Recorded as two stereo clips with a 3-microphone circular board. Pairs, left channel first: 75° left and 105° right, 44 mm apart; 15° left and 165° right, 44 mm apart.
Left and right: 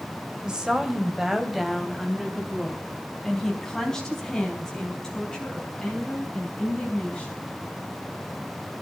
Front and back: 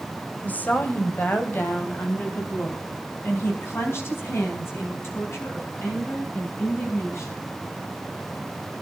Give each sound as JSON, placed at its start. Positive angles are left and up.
{"t": 0.4, "sound": "a woman speaking", "azimuth_deg": -35, "distance_m": 2.5}